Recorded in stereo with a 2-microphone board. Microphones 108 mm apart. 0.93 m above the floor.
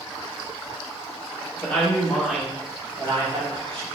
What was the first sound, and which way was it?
A woman speaking, 15° left (ahead or behind).